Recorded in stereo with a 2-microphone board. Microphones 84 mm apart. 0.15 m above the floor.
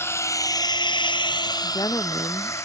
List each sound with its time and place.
0.0 s a drone: 30° left (ahead or behind); by 2.6 s 35° left (ahead or behind)
1.6 s a woman speaking: 50° left (ahead or behind)